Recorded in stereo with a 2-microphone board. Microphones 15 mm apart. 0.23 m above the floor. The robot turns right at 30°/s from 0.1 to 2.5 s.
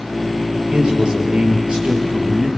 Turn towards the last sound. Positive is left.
turn(degrees=-60)